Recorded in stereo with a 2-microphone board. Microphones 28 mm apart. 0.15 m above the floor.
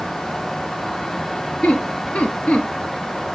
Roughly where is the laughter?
Left.